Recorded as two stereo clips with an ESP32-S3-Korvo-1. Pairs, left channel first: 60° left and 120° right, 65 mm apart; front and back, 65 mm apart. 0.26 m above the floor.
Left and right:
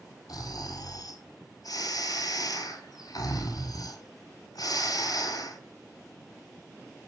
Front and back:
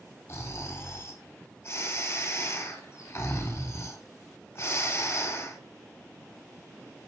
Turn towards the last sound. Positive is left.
turn(degrees=45)